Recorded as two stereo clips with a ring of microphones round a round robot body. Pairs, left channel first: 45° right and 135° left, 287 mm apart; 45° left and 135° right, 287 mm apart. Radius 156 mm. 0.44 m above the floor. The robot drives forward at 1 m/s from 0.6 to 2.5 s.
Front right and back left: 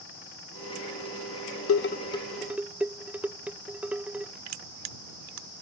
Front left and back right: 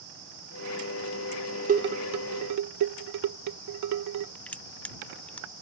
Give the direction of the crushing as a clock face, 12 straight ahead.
8 o'clock.